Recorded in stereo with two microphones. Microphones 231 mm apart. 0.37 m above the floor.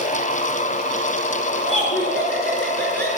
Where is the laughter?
5° left (ahead or behind), 5 m; by 3.1 s 10° left (ahead or behind), 6 m.